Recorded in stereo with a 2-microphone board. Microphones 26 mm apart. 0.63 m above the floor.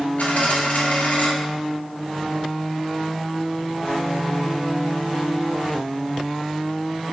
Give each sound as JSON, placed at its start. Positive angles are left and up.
{"t": 0.2, "sound": "a dropped coin", "side_deg": 70, "distance_m": 1.4}